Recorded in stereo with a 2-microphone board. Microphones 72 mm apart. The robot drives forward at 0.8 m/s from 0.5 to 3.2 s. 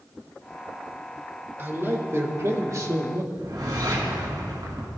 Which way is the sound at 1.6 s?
30° right (ahead or behind).